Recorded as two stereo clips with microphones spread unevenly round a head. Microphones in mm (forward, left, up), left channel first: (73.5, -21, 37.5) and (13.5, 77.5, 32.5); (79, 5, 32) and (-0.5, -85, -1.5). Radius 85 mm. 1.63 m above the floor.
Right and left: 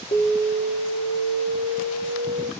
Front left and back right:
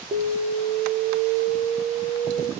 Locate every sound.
0.1 s an alarm: 80° right, 0.9 m